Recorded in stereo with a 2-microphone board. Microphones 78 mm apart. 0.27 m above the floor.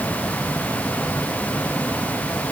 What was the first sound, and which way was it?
Only background noise.